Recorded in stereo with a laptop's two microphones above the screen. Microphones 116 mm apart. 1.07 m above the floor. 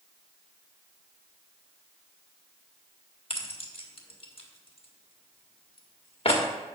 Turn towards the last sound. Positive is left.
turn(degrees=55)  # may be behind; listen again after turning